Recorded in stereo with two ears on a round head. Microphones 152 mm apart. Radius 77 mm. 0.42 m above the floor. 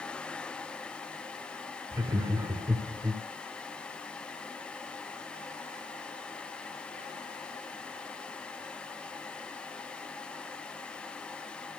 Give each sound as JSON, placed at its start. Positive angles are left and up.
{"t": 1.9, "sound": "laughter", "side_deg": -20, "distance_m": 1.2}